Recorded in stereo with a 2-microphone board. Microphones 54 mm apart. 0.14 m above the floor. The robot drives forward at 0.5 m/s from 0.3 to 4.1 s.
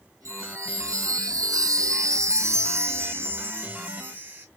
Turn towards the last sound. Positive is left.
turn(degrees=-30)  # may be behind; listen again after turning